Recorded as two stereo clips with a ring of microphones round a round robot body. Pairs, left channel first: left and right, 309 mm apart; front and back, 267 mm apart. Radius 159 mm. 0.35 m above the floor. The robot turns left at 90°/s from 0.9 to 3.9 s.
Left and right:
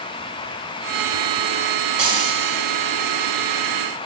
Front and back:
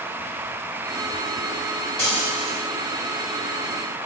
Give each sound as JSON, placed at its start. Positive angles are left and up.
{"t": 2.0, "sound": "frying", "azimuth_deg": -85, "distance_m": 2.0}